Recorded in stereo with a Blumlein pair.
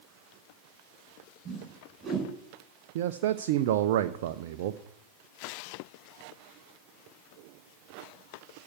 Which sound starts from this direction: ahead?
A whoosh, at 1.4 s.